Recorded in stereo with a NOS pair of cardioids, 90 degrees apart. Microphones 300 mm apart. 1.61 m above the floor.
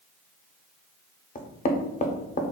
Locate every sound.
1.4 s knocking: 30° left, 0.6 m